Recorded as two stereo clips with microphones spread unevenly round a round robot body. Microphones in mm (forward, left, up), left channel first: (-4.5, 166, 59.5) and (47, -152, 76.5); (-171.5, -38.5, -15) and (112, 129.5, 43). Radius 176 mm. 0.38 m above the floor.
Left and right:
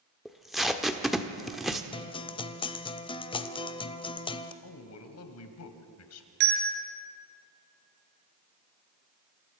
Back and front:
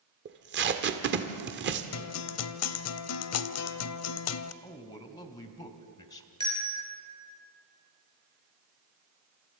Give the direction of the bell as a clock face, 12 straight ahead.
2 o'clock.